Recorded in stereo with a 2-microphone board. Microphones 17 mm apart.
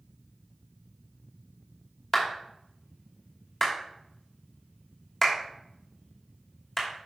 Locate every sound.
2.1 s a clap: 10° left (ahead or behind), 2.5 m